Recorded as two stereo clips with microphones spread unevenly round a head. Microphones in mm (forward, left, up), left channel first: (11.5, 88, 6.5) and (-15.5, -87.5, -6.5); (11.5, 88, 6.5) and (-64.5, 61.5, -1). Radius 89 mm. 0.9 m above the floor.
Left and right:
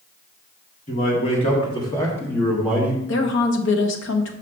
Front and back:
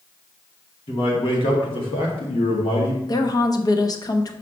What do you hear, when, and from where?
0.9 s a man speaking: 30° left, 2 m; by 3.0 s 25° right, 1.4 m
3.1 s a woman speaking: 60° left, 0.9 m